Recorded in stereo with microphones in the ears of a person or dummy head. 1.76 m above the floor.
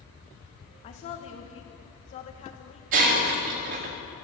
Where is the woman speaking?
35° left (ahead or behind), 1.5 m.